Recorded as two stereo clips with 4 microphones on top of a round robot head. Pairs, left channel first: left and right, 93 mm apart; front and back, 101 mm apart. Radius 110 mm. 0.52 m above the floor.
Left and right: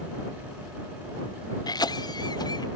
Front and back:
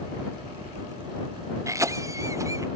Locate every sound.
1.7 s a cough: 125° left